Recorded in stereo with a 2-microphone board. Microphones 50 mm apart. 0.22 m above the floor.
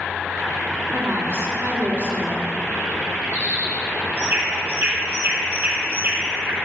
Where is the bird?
45° right (ahead or behind), 3 m.